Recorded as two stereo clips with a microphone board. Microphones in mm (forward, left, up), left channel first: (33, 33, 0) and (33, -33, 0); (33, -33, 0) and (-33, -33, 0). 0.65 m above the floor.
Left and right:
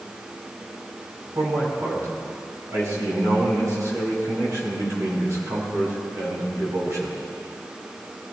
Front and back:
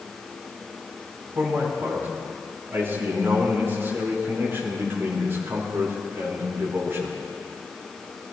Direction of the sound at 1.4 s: 125° right.